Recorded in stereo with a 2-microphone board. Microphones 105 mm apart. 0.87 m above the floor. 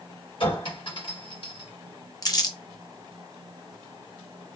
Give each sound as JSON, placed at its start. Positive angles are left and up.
{"t": 0.4, "sound": "a clink", "side_deg": 55, "distance_m": 1.4}
{"t": 2.2, "sound": "crumpling", "side_deg": 40, "distance_m": 0.7}